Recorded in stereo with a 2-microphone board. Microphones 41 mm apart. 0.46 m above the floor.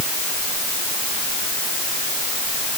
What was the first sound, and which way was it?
Only background noise.